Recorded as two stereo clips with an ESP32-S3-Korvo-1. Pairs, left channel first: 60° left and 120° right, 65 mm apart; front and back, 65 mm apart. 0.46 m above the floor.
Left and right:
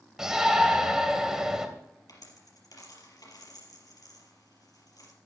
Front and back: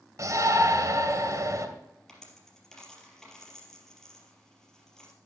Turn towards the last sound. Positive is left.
turn(degrees=80)